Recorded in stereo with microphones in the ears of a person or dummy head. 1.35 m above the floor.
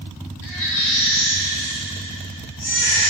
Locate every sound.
0.4 s a baby crying: 70° left (ahead or behind), 3 m